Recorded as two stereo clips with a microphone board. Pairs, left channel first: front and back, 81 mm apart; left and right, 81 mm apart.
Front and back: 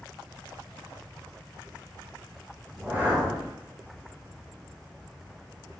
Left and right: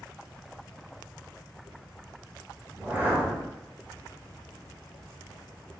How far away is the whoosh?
About 0.8 m.